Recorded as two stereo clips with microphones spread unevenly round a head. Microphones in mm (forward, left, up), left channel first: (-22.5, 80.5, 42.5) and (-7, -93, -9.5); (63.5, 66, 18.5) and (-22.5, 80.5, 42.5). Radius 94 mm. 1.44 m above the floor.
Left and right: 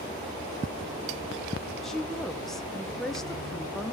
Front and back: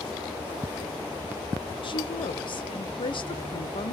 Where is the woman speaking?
5° left, 1.2 m.